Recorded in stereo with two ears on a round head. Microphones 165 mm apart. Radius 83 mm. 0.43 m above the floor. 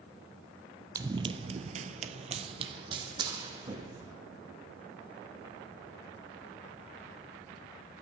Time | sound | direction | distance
0.9 | running footsteps | 20° right (ahead or behind) | 0.6 m